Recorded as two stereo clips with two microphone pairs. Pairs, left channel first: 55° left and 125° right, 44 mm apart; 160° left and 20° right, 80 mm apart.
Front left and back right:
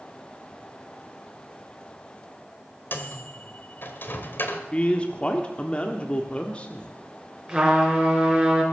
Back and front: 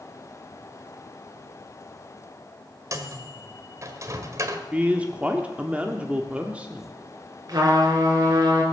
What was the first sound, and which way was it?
A microwave, 25° left.